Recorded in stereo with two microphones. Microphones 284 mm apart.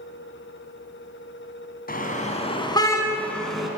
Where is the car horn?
30° left (ahead or behind), 3 m; by 3.7 s centre (ahead or behind), 3.5 m.